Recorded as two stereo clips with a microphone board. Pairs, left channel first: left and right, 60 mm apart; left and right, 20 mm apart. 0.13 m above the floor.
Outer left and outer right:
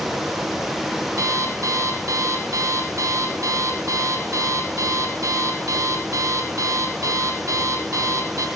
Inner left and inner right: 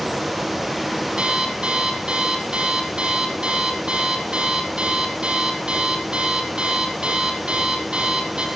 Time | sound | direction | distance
1.2 | an alarm clock | 60° right (ahead or behind) | 3 m